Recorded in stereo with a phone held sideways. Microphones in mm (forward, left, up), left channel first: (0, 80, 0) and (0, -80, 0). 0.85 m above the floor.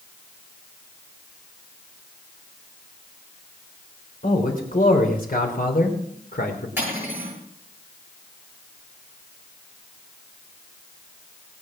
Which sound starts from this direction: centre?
Cutlery clinking, at 6.8 s.